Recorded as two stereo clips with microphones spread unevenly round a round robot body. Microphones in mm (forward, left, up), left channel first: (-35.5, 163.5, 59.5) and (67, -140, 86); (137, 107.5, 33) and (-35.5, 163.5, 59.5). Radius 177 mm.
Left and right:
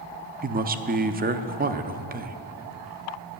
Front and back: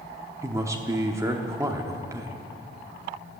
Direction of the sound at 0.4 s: 120° right.